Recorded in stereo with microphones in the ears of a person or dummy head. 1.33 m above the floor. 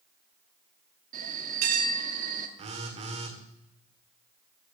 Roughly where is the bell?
Right.